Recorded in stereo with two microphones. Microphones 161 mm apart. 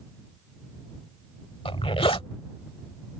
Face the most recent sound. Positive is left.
turn(degrees=35)  # may be behind; listen again after turning